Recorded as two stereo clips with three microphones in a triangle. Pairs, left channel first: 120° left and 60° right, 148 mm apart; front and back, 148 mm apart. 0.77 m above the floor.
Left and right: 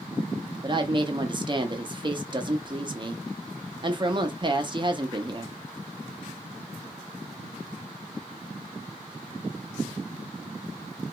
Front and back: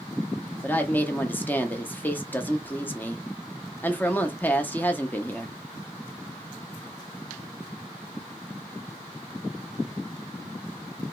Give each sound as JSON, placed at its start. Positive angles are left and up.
{"t": 0.6, "sound": "a woman speaking", "azimuth_deg": -65, "distance_m": 0.5}